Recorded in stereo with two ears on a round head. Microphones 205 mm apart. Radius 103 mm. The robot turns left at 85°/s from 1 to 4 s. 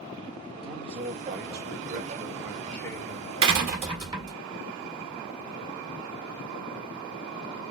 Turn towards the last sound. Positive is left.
turn(degrees=-160)